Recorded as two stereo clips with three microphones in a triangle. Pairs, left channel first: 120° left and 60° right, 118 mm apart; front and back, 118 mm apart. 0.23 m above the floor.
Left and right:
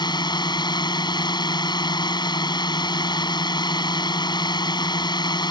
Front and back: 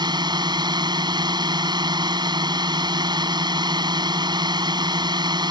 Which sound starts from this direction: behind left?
A drone, at 0.0 s.